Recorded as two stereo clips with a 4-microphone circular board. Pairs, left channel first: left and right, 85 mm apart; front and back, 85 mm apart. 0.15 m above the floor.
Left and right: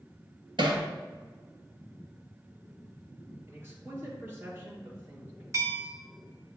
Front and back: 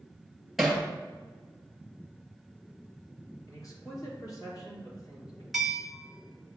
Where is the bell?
95° right, 1.2 m.